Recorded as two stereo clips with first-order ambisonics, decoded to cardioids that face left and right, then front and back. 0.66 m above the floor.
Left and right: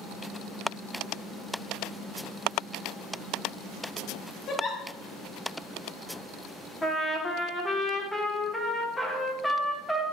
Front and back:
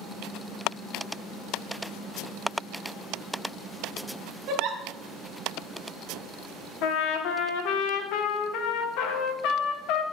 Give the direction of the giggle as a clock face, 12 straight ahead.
7 o'clock.